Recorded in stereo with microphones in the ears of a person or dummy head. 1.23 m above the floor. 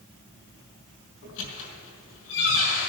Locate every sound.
1.2 s a squeak: 75° left (ahead or behind), 4 m